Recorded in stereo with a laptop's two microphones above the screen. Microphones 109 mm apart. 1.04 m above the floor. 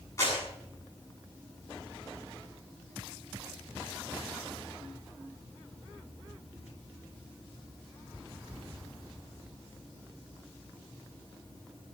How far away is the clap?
About 7.5 m.